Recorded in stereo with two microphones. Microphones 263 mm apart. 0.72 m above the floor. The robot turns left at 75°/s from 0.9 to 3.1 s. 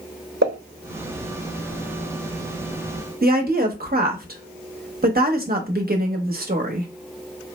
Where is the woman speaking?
35° right (ahead or behind), 0.8 m.